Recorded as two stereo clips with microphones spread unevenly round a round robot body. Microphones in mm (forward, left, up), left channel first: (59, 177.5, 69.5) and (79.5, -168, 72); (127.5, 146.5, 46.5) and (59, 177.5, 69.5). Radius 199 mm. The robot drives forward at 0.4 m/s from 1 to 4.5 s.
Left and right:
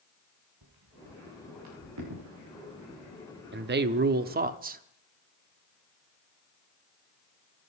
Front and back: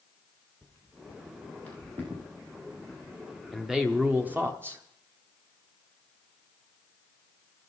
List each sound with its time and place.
0.6 s footsteps: 125° right, 3 m; by 3.7 s 145° right, 8 m
3.5 s a man speaking: 80° right, 0.7 m; by 4.8 s 135° right, 0.8 m